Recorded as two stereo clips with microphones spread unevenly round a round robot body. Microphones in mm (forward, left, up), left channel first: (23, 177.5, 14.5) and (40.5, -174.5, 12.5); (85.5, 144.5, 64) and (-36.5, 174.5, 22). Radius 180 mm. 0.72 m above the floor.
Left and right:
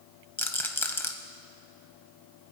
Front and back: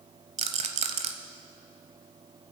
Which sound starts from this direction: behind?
A rattle, at 0.4 s.